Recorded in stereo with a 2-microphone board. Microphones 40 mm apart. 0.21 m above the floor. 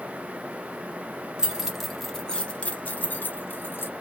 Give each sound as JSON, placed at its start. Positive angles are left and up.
{"t": 1.4, "sound": "keys jangling", "side_deg": -15, "distance_m": 0.9}